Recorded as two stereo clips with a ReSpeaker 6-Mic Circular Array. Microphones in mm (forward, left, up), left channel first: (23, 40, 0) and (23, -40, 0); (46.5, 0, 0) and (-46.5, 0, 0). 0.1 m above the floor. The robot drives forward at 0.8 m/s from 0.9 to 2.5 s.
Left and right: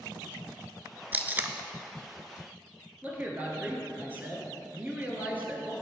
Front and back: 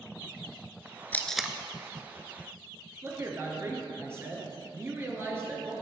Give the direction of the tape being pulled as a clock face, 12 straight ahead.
2 o'clock.